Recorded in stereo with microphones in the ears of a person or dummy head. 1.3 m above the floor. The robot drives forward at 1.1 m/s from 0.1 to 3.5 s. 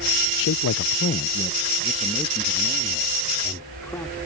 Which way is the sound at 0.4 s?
70° left (ahead or behind).